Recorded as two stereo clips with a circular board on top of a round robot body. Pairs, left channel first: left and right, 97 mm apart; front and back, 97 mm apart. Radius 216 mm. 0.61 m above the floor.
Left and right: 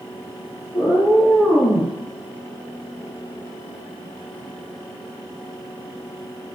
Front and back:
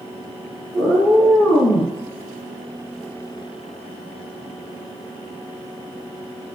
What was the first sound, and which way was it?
A cat meowing, 40° left.